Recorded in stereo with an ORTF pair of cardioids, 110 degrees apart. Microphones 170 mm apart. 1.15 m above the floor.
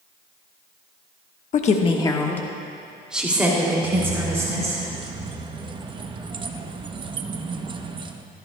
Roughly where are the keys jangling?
Ahead right.